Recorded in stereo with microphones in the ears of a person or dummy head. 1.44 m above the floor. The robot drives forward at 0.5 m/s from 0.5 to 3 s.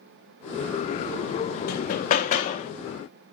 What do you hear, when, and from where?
1.7 s hammering: 50° left (ahead or behind), 1.9 m; by 2.7 s 40° left (ahead or behind), 2.5 m